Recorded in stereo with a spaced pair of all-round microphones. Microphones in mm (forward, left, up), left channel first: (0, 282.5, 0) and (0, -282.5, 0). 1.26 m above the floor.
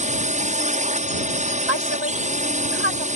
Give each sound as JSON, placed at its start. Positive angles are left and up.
{"t": 0.0, "sound": "a drone", "side_deg": -10}
{"t": 1.7, "sound": "a woman speaking", "side_deg": -45}